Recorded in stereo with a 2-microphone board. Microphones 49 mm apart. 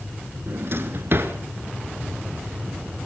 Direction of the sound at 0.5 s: 50° right (ahead or behind).